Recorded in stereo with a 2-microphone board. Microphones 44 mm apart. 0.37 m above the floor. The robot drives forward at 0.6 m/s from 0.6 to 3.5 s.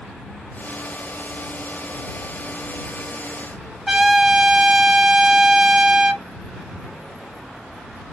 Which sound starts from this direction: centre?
A trumpet, at 3.9 s.